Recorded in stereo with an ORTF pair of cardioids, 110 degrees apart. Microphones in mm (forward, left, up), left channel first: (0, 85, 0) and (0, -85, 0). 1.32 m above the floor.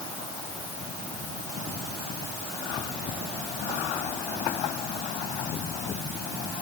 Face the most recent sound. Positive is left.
No sound to turn to.